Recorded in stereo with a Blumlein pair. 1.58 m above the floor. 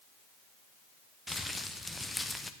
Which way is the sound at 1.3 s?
5° left.